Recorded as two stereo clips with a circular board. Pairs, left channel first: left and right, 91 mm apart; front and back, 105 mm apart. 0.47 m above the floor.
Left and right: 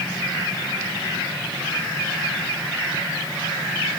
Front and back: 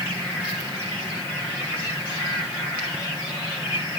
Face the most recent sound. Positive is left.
No sound to turn to.